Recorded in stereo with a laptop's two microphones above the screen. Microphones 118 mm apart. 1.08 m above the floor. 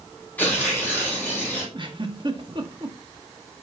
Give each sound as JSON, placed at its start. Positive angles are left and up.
{"t": 0.4, "sound": "tearing paper", "side_deg": 15, "distance_m": 3.5}
{"t": 1.7, "sound": "a giggle", "side_deg": -45, "distance_m": 1.3}